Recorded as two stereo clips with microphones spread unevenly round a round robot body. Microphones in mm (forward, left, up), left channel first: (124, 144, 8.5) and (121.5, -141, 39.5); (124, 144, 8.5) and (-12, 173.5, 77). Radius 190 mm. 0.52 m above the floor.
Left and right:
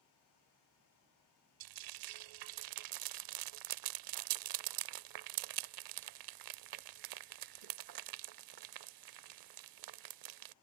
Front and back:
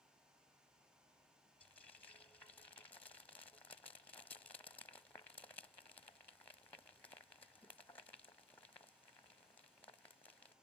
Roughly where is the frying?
Right.